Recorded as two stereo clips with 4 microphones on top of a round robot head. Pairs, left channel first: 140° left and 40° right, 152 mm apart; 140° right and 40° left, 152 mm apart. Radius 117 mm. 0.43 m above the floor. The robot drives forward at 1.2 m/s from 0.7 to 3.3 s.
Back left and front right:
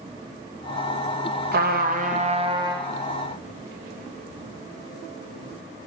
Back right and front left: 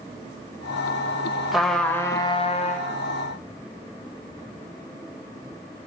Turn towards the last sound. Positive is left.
turn(degrees=-125)